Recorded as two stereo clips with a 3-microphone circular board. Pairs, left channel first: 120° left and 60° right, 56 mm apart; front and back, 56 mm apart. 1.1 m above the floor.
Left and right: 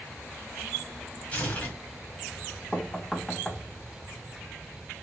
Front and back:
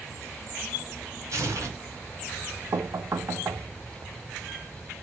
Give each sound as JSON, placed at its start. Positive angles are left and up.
{"t": 1.3, "sound": "tearing paper", "azimuth_deg": 180, "distance_m": 1.7}
{"t": 2.7, "sound": "knocking", "azimuth_deg": -165, "distance_m": 0.6}